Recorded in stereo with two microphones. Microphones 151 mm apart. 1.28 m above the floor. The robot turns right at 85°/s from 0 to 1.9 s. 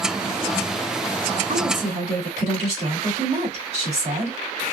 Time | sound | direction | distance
1.5 | a woman speaking | 85° right | 2.5 m